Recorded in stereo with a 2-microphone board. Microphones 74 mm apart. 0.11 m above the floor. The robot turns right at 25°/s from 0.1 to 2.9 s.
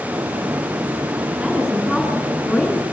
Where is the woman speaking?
15° right, 8 m; by 2.8 s 20° left, 8 m.